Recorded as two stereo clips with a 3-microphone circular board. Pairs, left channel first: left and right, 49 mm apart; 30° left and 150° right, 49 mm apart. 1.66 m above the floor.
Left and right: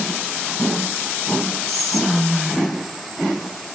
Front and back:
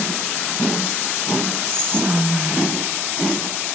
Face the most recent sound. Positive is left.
turn(degrees=170)